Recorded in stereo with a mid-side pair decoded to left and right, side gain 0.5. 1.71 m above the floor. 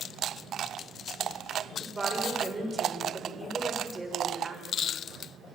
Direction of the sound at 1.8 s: 15° right.